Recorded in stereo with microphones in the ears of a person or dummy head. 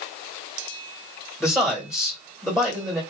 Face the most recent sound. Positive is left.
turn(degrees=0)  # may be behind; listen again after turning